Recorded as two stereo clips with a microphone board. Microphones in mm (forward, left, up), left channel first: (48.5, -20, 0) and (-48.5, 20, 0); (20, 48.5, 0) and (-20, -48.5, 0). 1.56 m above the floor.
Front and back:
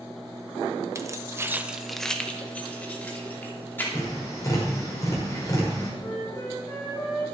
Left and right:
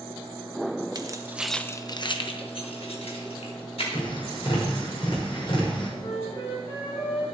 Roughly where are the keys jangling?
Behind right.